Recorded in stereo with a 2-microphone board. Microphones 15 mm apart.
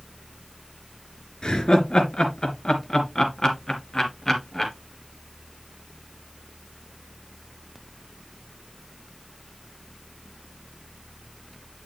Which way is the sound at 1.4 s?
60° left (ahead or behind).